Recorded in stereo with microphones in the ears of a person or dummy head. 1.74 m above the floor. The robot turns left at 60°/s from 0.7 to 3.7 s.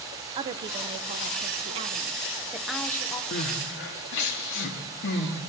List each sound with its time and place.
0.3 s a woman speaking: 50° right, 0.8 m; by 3.2 s 155° left, 0.8 m
3.3 s crying: 45° left (ahead or behind), 1.9 m; by 5.4 s 60° left (ahead or behind), 1.9 m